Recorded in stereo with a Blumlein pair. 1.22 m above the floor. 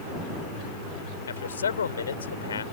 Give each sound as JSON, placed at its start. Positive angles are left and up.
{"t": 1.3, "sound": "a man speaking", "azimuth_deg": 70}